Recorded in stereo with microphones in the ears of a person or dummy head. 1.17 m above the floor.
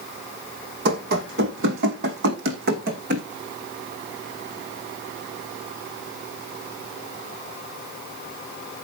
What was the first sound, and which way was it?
Running footsteps, 65° right (ahead or behind).